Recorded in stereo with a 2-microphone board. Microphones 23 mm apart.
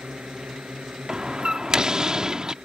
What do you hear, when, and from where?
0.0 s a drone: 70° right (ahead or behind); by 2.6 s 80° right
1.1 s a door slam: 40° right (ahead or behind)